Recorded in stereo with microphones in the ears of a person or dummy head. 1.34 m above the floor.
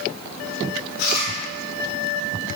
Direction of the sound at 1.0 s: 55° left (ahead or behind).